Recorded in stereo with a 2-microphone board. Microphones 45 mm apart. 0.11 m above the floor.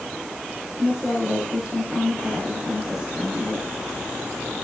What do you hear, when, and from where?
0.8 s a woman speaking: 10° right (ahead or behind), 6.5 m